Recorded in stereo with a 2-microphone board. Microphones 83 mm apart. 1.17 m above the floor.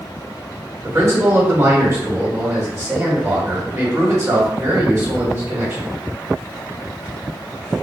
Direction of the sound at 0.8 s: 40° right (ahead or behind).